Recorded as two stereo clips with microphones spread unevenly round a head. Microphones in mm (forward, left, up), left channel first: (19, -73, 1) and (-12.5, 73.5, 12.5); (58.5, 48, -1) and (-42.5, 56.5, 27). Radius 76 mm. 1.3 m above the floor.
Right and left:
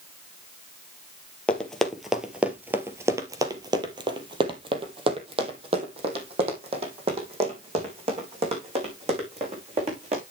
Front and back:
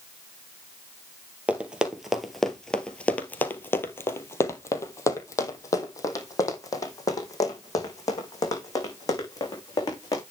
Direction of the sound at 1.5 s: 165° right.